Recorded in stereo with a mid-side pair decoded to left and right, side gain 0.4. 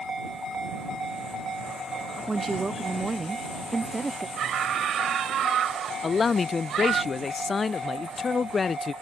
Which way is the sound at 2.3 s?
20° right.